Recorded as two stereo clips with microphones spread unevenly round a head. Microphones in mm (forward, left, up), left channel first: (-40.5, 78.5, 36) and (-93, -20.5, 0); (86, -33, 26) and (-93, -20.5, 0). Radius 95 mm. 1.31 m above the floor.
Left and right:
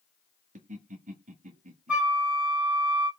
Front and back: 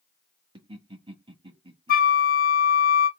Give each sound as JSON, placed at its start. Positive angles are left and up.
{"t": 0.6, "sound": "laughter", "azimuth_deg": -120, "distance_m": 1.6}
{"t": 1.9, "sound": "a flute", "azimuth_deg": -25, "distance_m": 1.0}